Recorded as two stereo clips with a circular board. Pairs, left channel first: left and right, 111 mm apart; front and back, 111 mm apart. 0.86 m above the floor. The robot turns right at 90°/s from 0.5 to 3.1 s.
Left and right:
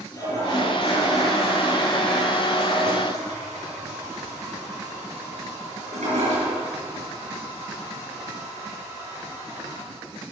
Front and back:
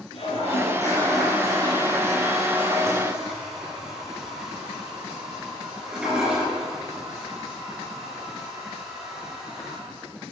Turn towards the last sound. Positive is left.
turn(degrees=-95)